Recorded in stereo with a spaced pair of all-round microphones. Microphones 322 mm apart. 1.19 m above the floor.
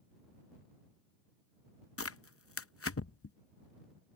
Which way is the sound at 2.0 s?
45° left (ahead or behind).